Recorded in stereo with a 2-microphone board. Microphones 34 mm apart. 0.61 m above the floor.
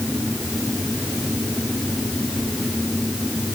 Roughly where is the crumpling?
No crumpling in this recording.